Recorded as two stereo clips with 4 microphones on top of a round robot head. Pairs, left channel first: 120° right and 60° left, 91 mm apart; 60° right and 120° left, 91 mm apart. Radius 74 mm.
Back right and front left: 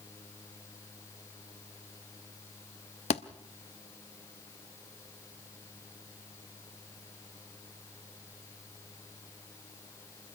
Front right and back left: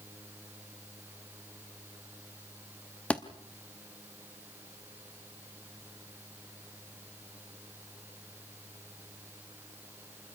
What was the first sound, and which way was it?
A thud, 140° right.